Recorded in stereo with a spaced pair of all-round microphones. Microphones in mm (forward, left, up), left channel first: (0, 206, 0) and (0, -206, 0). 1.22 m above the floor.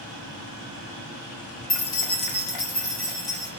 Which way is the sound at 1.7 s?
40° left (ahead or behind).